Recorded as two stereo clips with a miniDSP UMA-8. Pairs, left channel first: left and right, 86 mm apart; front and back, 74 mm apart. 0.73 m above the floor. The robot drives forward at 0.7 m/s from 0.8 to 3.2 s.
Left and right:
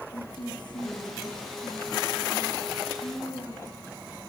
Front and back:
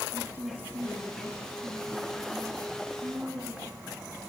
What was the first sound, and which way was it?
A woman speaking, 120° left.